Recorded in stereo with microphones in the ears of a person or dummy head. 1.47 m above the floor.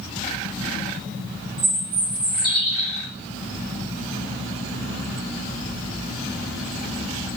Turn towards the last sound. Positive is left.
turn(degrees=-30)  # may be behind; listen again after turning